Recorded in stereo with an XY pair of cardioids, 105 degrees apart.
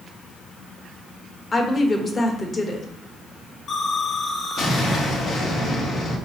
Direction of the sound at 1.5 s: 35° left.